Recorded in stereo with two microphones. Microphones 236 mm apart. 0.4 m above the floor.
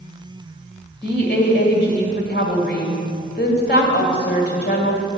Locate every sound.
1.0 s a woman speaking: 50° left (ahead or behind), 1.7 m